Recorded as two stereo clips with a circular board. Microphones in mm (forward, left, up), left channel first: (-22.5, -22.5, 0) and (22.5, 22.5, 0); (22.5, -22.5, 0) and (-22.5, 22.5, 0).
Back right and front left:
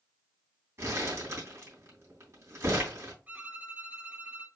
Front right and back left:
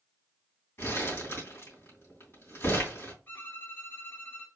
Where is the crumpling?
5° left, 3 m.